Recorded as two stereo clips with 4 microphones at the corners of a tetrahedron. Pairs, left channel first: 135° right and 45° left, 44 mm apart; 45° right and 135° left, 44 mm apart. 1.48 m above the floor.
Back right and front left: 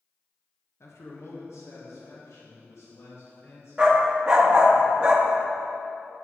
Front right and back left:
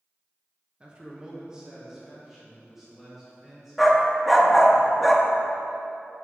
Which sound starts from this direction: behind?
A man speaking, at 0.8 s.